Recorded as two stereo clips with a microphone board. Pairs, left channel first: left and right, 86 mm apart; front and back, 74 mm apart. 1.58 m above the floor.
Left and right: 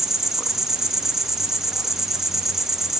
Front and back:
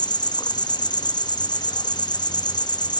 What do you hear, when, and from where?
0.0 s an insect: 5° right, 0.9 m